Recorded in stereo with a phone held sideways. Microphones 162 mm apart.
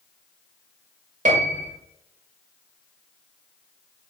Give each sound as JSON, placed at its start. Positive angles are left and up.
{"t": 1.2, "sound": "a piano", "side_deg": -50, "distance_m": 0.8}